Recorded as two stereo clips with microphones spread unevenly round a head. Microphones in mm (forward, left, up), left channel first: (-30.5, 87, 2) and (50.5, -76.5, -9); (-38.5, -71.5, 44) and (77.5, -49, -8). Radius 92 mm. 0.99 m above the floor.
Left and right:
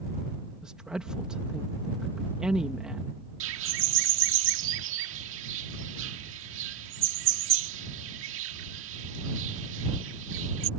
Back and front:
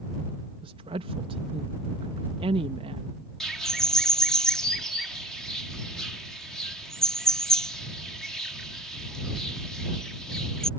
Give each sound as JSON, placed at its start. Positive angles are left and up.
{"t": 0.6, "sound": "a woman speaking", "azimuth_deg": 20}
{"t": 3.4, "sound": "a bird", "azimuth_deg": -80}